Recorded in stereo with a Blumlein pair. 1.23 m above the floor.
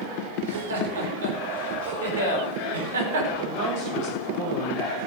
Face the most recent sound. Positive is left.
turn(degrees=-45)